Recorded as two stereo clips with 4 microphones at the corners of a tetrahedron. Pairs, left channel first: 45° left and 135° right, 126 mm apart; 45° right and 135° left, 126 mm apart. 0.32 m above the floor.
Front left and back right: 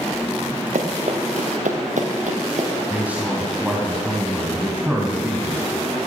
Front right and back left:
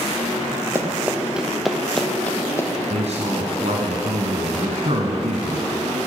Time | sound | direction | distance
0.8 | running footsteps | 155° right | 2.5 m
2.9 | a man speaking | 150° left | 2.5 m